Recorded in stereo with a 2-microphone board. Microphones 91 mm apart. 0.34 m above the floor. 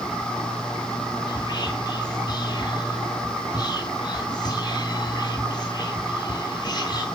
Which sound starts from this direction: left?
Whispering, at 1.3 s.